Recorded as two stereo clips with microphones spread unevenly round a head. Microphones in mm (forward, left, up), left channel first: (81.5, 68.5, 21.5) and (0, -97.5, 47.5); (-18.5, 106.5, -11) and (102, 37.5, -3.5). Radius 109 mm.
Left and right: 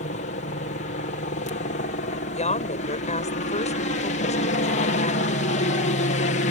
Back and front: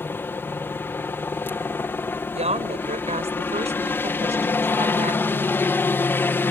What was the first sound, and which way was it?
A helicopter, 80° left.